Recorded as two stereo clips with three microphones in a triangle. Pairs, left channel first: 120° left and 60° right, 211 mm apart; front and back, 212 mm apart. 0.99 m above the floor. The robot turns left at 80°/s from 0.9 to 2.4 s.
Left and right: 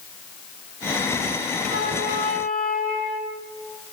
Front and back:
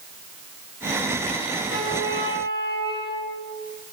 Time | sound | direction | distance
1.6 | a flute | 20° left | 1.9 m